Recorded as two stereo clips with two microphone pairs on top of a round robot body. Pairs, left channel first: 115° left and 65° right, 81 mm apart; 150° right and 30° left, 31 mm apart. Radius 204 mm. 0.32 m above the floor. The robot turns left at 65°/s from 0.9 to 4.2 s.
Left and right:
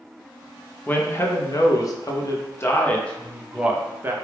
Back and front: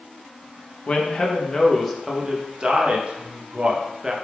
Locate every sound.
0.9 s a man speaking: straight behind, 0.9 m; by 4.1 s 35° right, 0.9 m